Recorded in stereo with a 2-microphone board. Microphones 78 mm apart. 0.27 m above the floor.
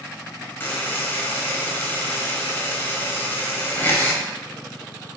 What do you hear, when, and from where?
0.6 s a buzzer: 30° left (ahead or behind), 0.8 m